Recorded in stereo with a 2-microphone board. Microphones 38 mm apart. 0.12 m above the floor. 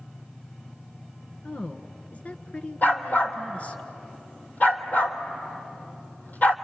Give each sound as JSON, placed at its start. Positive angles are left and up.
{"t": 1.4, "sound": "a woman speaking", "side_deg": 40, "distance_m": 1.4}
{"t": 2.8, "sound": "a dog barking", "side_deg": 50, "distance_m": 1.5}